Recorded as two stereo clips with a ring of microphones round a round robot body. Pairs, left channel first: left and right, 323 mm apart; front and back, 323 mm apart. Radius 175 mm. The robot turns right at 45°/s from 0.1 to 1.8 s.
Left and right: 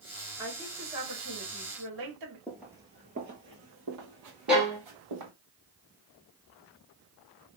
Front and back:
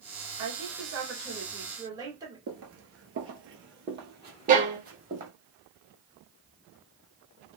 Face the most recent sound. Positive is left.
turn(degrees=-170)